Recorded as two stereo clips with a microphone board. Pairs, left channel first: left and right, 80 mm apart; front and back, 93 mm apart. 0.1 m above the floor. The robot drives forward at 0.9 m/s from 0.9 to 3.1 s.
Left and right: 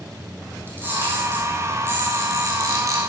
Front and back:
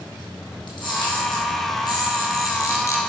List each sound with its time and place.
0.7 s a camera shutter: 30° right, 4 m; by 3.0 s 55° right, 2.5 m